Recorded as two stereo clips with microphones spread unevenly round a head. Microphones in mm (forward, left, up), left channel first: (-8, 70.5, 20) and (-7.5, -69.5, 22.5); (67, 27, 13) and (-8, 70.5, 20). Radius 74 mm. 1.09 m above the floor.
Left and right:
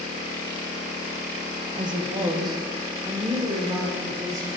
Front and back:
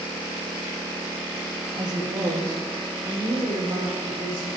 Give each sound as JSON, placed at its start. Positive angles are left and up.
{"t": 1.8, "sound": "a woman speaking", "azimuth_deg": -150, "distance_m": 1.2}